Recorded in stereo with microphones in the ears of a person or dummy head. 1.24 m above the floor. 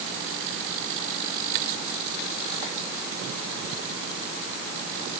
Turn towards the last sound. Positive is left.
No sound to turn to.